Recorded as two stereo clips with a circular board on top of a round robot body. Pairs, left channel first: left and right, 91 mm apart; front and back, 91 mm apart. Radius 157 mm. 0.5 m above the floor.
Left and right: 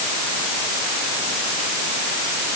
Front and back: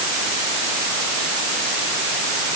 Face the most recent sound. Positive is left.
No sound to turn to.